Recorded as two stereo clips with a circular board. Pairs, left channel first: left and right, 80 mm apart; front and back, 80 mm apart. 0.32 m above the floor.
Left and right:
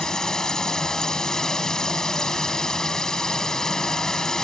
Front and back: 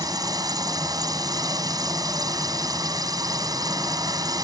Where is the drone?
170° left.